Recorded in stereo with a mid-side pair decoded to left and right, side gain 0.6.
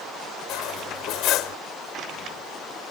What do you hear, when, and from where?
0.5 s cutlery clinking: 65° left